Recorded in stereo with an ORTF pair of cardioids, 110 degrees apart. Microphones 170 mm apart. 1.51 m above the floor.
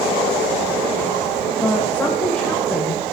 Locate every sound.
1.6 s a woman speaking: 10° left, 1.8 m